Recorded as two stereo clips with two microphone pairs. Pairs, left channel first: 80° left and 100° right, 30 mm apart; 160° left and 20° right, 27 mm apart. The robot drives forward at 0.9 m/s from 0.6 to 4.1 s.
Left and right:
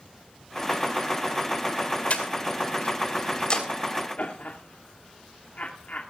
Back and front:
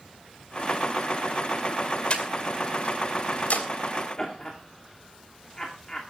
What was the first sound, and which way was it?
Breathing, 115° left.